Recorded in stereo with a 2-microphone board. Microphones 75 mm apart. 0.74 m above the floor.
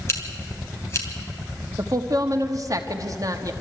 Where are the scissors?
35° left (ahead or behind), 3 m.